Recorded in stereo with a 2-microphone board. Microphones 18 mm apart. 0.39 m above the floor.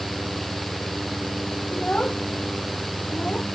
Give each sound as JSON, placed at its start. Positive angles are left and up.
{"t": 1.7, "sound": "a child speaking", "side_deg": 85}